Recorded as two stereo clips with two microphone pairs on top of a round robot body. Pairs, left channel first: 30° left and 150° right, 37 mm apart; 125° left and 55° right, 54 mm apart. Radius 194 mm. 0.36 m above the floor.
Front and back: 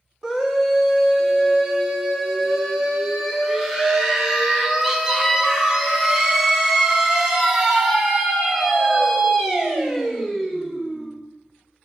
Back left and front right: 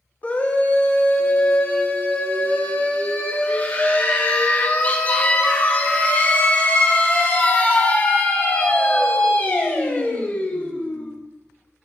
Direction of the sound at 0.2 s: 145° left.